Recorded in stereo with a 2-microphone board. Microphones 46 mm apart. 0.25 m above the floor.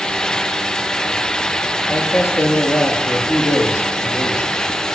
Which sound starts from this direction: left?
A man speaking, at 1.9 s.